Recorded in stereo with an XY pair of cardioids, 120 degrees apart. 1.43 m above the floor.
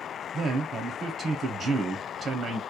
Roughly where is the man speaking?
Ahead right.